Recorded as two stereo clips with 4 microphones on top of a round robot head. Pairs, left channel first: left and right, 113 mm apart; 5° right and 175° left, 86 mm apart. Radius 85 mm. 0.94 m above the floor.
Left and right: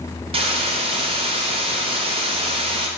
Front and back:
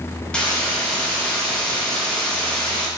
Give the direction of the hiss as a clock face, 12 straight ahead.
3 o'clock.